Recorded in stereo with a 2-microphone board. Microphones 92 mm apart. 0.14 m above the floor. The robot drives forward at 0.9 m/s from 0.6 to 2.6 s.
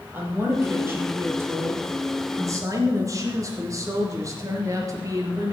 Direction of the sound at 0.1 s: 25° right (ahead or behind).